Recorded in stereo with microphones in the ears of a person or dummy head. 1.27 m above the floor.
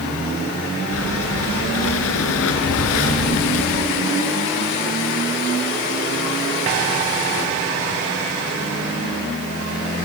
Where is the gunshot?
I don't hear a gunshot.